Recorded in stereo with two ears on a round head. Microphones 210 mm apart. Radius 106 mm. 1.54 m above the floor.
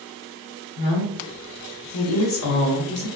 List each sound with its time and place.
0.8 s a woman speaking: 55° left (ahead or behind), 0.8 m; by 3.1 s 45° left (ahead or behind), 1.1 m